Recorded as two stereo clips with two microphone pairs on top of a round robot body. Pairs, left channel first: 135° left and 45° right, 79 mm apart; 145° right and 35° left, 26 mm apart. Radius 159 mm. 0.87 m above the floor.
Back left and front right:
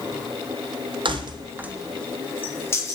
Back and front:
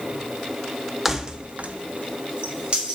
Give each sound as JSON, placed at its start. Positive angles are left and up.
{"t": 1.1, "sound": "keys jangling", "azimuth_deg": -45, "distance_m": 0.9}